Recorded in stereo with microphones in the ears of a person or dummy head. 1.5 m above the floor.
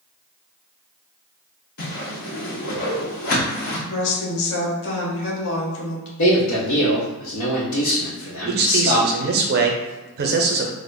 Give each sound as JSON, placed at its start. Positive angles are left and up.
{"t": 1.8, "sound": "a whoosh", "side_deg": 50, "distance_m": 0.9}
{"t": 3.9, "sound": "a woman speaking", "side_deg": 70, "distance_m": 1.5}
{"t": 6.2, "sound": "a man speaking", "side_deg": 75, "distance_m": 1.0}
{"t": 8.5, "sound": "a man speaking", "side_deg": -55, "distance_m": 0.6}